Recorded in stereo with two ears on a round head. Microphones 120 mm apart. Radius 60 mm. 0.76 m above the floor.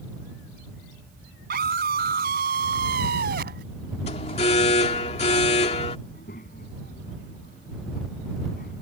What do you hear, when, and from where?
1.5 s a scream: 75° right (ahead or behind); by 3.6 s 80° right
4.1 s an alarm: 50° left (ahead or behind)
6.1 s a child speaking: 70° left (ahead or behind)